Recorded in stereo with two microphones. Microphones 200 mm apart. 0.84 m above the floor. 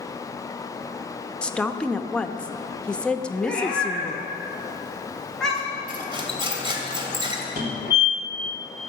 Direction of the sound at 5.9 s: 25° right (ahead or behind).